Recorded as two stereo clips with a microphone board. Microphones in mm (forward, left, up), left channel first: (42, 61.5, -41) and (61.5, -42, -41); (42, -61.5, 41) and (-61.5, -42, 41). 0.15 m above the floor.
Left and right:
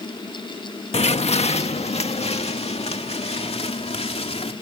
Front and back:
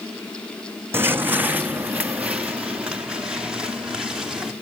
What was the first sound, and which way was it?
Footsteps, 105° left.